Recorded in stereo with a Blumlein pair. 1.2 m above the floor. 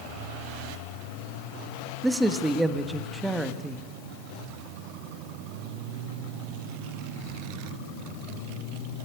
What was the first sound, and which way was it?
A man speaking, 5° right.